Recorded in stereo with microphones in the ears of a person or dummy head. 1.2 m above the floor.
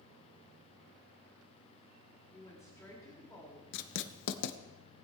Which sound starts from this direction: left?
Writing, at 3.7 s.